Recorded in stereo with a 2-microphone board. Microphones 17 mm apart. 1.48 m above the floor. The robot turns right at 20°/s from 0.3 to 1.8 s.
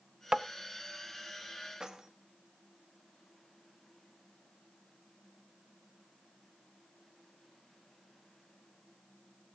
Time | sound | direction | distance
0.3 | tapping | 45° right (ahead or behind) | 0.5 m
1.8 | keys jangling | 40° right (ahead or behind) | 1.7 m